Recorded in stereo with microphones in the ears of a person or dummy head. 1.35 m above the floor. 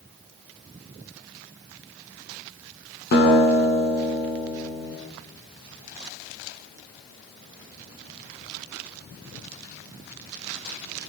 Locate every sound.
3.1 s a guitar: 55° left (ahead or behind), 9 m